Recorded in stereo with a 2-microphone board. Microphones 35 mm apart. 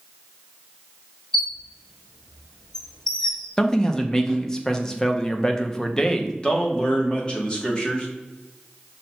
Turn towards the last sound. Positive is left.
turn(degrees=25)  # may be behind; listen again after turning